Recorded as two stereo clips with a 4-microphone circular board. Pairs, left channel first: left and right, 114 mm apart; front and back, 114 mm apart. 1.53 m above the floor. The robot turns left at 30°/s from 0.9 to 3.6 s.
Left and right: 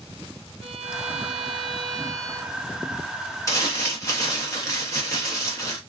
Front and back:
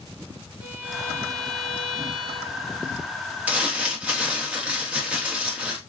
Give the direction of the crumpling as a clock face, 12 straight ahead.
8 o'clock.